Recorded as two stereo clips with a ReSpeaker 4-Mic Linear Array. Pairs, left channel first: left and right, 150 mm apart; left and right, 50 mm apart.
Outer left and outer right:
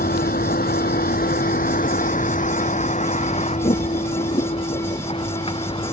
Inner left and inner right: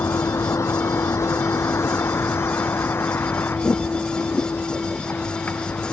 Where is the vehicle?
75° left (ahead or behind); by 5.9 s 35° left (ahead or behind).